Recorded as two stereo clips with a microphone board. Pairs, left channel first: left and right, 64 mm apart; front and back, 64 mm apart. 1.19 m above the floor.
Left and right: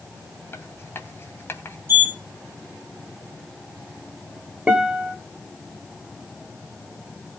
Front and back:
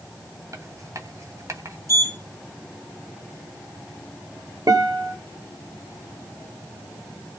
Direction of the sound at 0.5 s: 145° left.